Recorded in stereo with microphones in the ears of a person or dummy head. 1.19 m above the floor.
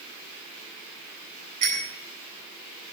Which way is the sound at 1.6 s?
45° right (ahead or behind).